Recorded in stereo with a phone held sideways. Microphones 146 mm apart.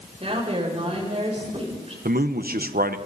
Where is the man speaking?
75° right (ahead or behind), 1.1 m.